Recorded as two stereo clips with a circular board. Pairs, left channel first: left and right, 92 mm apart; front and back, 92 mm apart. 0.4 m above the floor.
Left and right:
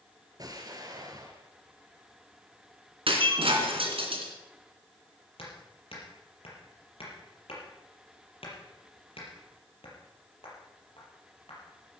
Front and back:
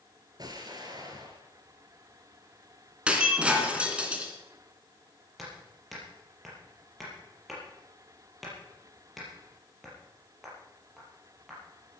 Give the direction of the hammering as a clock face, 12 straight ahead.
9 o'clock.